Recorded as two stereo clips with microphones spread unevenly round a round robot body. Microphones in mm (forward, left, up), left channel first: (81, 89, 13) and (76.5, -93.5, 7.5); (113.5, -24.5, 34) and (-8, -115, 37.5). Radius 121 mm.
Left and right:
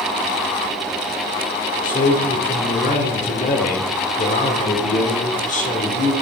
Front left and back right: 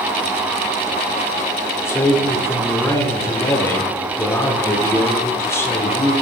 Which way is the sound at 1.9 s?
100° left.